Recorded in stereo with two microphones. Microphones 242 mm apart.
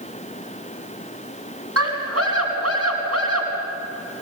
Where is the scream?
80° right, 5 m.